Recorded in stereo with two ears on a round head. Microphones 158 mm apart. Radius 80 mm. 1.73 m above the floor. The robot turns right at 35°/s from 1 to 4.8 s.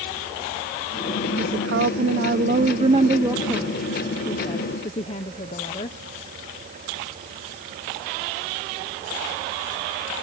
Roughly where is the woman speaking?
Right.